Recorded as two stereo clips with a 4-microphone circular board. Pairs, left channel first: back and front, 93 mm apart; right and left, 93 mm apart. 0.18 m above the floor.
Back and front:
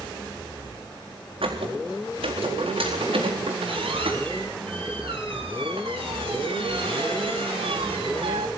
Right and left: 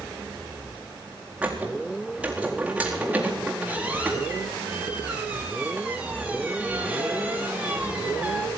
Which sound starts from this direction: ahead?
A squeak, at 1.4 s.